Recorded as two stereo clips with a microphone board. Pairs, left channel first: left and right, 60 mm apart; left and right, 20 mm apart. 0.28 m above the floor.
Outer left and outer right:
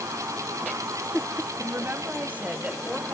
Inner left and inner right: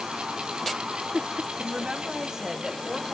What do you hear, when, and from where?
1.6 s a woman speaking: 40° right (ahead or behind), 1.4 m; by 3.1 s centre (ahead or behind), 1.2 m